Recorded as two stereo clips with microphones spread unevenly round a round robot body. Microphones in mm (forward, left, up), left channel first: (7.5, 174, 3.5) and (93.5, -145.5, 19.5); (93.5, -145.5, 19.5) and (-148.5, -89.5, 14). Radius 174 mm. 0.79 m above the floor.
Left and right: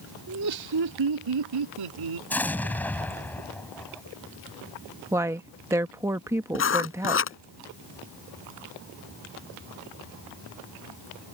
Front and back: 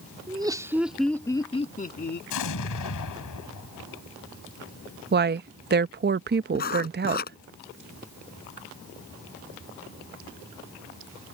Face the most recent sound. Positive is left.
turn(degrees=50)